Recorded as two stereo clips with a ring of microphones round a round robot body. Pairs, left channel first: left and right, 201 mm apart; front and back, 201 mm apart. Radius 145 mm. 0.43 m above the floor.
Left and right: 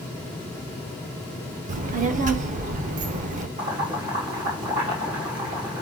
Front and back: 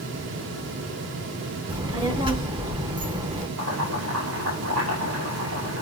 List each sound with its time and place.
1.7 s a child speaking: 125° right, 0.7 m
3.6 s boiling: 150° right, 3.5 m